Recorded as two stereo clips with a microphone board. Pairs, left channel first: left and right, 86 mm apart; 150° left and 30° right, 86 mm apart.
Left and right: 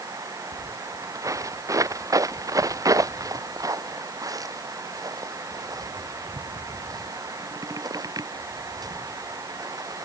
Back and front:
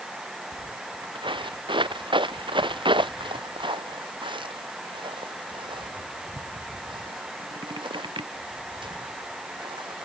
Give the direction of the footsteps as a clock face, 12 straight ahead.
1 o'clock.